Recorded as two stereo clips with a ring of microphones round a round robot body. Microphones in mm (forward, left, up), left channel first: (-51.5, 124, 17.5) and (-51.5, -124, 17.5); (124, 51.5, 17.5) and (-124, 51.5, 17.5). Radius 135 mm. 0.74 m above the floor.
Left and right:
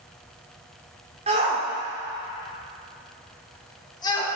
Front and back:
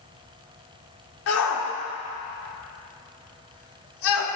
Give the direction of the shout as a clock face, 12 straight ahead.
1 o'clock.